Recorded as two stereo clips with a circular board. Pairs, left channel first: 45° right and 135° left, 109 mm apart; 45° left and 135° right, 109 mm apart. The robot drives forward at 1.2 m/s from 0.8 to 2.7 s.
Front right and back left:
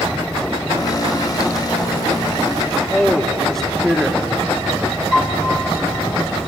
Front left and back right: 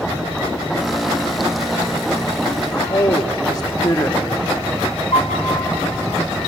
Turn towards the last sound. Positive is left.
turn(degrees=35)